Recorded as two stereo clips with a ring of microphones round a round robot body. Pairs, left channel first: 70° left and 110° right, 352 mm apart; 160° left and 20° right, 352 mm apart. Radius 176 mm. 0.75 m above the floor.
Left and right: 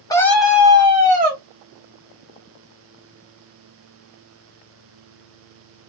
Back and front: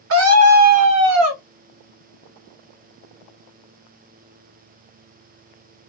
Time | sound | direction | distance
0.1 | a scream | 5° right | 1.0 m